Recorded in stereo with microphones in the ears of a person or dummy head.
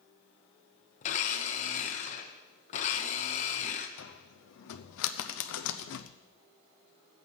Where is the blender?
40° left (ahead or behind), 1.0 m.